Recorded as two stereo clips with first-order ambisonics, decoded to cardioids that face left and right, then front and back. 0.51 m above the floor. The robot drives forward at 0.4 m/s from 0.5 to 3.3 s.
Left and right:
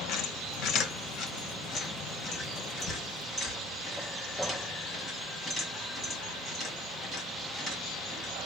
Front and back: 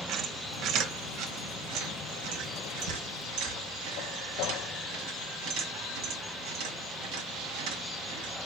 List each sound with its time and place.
0.1 s a squeak: 130° left, 0.8 m; by 8.3 s 160° left, 1.7 m